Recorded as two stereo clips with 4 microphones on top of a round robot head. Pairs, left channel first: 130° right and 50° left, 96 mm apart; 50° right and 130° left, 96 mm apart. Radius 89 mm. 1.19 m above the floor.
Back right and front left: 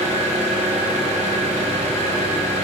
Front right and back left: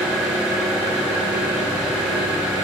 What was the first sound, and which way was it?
An engine running, 40° left.